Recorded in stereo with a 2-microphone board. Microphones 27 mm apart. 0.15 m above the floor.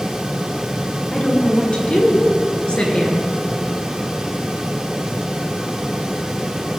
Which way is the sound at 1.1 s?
45° left (ahead or behind).